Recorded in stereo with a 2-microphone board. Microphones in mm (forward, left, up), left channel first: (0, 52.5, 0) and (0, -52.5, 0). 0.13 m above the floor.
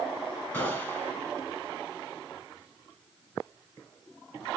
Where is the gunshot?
15° left (ahead or behind), 2.0 m.